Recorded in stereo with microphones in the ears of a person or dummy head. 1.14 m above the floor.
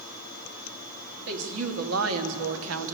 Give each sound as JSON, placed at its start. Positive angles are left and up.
{"t": 1.3, "sound": "a woman speaking", "side_deg": -80, "distance_m": 2.0}